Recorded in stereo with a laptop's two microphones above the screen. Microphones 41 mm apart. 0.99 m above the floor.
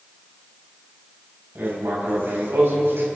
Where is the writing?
80° right, 4.5 m.